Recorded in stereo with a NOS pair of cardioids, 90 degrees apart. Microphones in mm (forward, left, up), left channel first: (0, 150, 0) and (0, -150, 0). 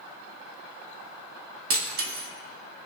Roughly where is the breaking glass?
Ahead right.